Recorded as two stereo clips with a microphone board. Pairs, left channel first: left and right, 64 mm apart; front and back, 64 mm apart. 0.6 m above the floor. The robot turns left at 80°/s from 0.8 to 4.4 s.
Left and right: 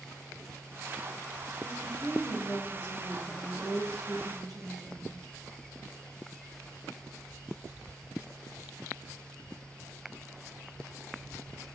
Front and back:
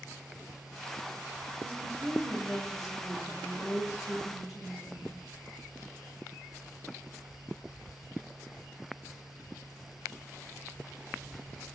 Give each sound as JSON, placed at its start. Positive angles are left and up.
{"t": 1.6, "sound": "a woman speaking", "azimuth_deg": 135, "distance_m": 3.5}